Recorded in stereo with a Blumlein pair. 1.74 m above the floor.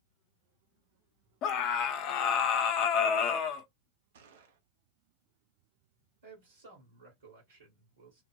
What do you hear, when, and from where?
1.4 s a scream: 40° left, 0.7 m
4.1 s a gunshot: 60° right, 0.6 m
6.2 s a man speaking: 65° right, 1.6 m